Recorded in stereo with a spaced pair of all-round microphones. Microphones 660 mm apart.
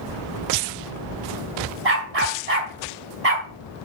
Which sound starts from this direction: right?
A dog barking, at 1.9 s.